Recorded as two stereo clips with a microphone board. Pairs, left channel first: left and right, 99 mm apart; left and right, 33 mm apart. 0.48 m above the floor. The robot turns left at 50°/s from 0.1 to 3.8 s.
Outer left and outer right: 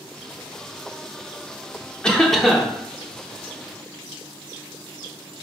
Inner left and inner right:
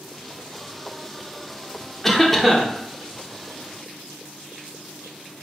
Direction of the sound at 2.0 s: 10° left (ahead or behind).